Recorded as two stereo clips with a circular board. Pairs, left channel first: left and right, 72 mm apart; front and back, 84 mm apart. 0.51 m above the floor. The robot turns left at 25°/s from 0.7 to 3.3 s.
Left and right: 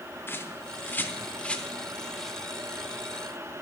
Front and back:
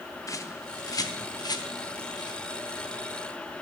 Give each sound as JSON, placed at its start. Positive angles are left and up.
{"t": 0.3, "sound": "a bird", "azimuth_deg": 40, "distance_m": 0.8}